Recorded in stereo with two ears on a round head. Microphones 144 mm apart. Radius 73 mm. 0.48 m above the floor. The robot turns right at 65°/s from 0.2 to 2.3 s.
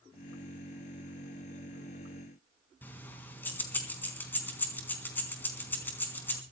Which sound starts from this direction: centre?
Keys jangling, at 2.8 s.